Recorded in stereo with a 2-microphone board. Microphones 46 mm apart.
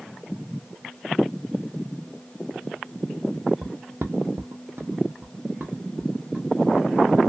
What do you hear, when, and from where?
3.6 s footsteps: 40° right (ahead or behind), 0.7 m; by 7.2 s 20° right (ahead or behind), 1.7 m